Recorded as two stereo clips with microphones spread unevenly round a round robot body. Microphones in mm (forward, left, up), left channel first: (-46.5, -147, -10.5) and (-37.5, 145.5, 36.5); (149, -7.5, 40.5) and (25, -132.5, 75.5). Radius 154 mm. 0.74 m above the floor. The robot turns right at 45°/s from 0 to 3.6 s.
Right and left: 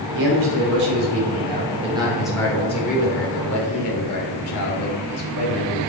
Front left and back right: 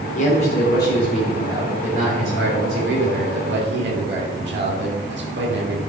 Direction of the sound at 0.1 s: 85° left.